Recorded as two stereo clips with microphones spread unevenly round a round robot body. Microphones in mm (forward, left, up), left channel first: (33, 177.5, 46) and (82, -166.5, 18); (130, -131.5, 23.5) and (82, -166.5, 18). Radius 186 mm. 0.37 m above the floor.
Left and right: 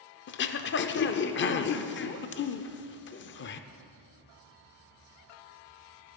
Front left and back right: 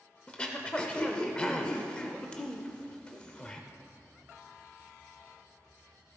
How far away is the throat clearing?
About 0.5 m.